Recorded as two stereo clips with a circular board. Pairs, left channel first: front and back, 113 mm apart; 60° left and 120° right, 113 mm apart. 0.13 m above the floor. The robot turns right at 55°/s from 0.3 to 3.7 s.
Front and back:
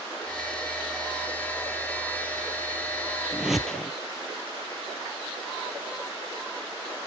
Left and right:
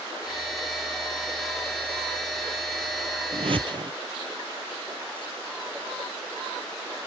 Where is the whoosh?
105° right, 0.6 m; by 3.9 s 85° right, 0.6 m.